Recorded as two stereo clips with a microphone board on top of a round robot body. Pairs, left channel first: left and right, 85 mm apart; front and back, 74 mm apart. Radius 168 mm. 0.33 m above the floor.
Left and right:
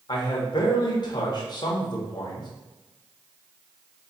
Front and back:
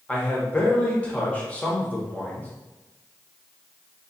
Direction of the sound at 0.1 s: 70° left.